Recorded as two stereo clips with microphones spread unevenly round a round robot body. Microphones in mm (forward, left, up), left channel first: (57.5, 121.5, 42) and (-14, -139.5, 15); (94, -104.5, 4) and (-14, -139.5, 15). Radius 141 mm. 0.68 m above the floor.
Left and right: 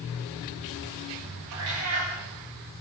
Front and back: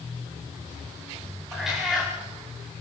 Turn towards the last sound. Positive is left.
turn(degrees=-75)